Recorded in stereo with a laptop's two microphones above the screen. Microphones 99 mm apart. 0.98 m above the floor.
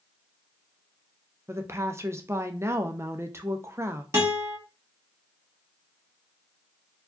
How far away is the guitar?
About 1.3 m.